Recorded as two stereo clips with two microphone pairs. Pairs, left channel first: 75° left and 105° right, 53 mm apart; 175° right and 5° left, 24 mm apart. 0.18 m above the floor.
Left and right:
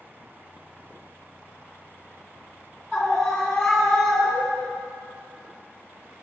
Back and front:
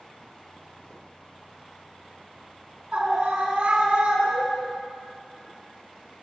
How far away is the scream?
About 2.5 m.